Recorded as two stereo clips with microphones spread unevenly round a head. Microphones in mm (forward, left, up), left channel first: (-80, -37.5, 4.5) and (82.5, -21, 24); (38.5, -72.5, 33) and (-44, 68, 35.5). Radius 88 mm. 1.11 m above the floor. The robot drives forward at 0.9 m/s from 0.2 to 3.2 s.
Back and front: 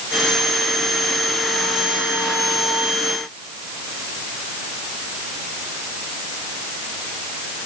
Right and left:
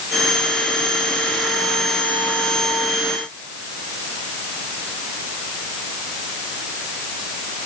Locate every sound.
Only background noise.